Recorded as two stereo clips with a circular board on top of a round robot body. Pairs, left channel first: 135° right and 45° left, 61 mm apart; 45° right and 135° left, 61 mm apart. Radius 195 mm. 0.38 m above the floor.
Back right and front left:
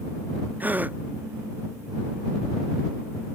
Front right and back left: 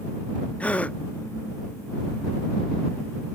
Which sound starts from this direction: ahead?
A gasp, at 0.6 s.